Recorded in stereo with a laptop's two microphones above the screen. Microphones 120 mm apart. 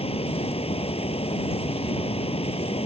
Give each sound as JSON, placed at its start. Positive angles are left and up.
{"t": 0.0, "sound": "a fan", "side_deg": 50}